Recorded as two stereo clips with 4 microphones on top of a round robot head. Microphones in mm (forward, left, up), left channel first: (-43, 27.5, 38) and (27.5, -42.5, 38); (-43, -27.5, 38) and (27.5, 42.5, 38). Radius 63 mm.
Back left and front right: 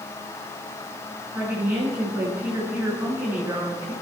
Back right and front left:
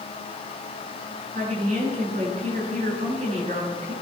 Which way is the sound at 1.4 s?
30° left.